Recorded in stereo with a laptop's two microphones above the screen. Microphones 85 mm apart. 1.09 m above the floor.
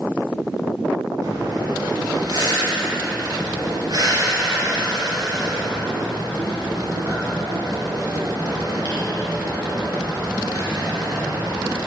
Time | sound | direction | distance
1.2 | breathing | 50° right (ahead or behind) | 1.7 m